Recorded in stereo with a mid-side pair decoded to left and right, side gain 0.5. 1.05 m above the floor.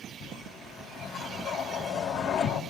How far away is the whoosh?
About 3 m.